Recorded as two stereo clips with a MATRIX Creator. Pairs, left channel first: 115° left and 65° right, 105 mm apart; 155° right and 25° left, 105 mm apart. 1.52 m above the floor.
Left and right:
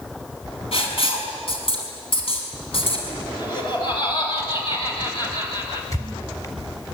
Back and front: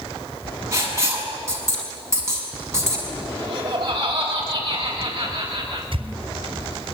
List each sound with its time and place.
0.7 s writing: 85° left, 6 m
3.4 s laughter: 70° left, 8 m
5.9 s a squeak: 55° left, 3.5 m